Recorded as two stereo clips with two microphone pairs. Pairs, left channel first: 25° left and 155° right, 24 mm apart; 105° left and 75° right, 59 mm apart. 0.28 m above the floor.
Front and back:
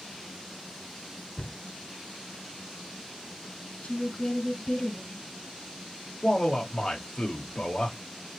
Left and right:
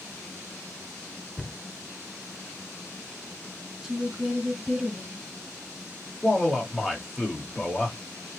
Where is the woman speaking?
Straight ahead, 2.0 m.